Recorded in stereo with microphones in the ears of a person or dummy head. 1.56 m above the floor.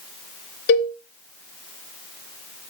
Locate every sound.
0.7 s a cowbell: 55° left (ahead or behind), 1.0 m